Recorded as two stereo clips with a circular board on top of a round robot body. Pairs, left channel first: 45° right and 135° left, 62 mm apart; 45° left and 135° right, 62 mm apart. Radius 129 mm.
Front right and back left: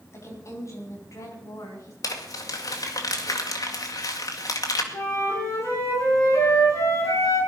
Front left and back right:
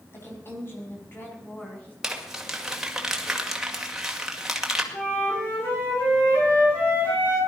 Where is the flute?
10° right, 8.5 m.